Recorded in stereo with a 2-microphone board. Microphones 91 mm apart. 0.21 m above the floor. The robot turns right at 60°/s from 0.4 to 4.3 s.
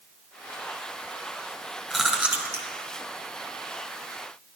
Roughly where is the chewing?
Centre.